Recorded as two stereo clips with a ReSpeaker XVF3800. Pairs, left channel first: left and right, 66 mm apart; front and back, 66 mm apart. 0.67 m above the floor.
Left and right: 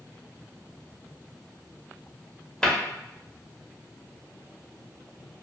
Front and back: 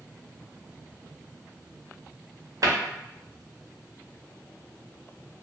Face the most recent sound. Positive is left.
turn(degrees=170)